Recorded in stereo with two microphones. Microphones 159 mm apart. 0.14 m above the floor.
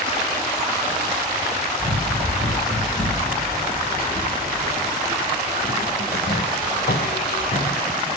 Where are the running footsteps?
50° left (ahead or behind), 3 m; by 7.8 s 55° left (ahead or behind), 1.2 m.